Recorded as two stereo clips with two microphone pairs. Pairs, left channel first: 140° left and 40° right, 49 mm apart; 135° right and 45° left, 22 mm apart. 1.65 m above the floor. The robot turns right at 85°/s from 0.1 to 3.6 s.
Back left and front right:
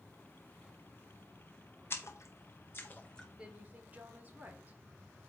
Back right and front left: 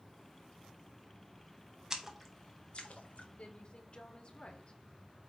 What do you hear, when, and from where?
1.9 s a splash: 105° left, 1.3 m; by 3.3 s 135° right, 1.3 m
3.4 s a woman speaking: 115° right, 1.8 m; by 4.8 s 95° right, 1.8 m